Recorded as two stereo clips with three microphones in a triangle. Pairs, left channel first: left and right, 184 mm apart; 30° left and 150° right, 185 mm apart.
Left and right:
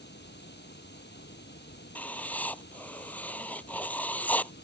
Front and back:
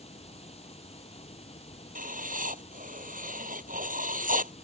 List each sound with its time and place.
0.0 s running water: 85° left
1.9 s writing: 170° left